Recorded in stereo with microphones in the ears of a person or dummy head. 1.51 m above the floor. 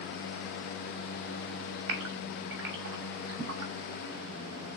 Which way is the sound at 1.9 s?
75° right (ahead or behind).